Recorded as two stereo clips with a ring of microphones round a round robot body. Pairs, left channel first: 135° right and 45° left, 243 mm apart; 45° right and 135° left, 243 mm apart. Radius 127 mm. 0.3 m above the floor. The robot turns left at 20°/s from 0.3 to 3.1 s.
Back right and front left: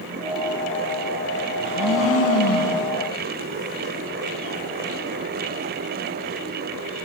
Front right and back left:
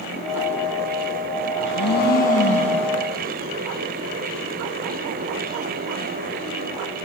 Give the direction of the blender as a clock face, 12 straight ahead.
3 o'clock.